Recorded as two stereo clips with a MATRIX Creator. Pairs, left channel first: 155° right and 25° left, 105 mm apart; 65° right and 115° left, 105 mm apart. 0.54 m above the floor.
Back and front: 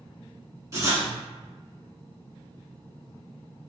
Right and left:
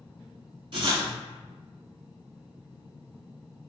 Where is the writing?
80° left, 0.9 m.